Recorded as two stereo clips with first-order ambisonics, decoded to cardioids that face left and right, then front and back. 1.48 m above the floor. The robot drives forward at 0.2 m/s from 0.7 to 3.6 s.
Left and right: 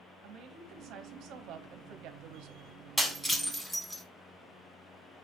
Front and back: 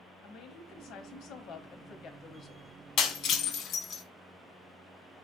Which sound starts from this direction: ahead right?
A woman speaking, at 0.2 s.